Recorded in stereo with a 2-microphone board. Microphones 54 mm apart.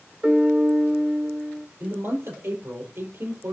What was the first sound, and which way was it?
A piano, 25° right (ahead or behind).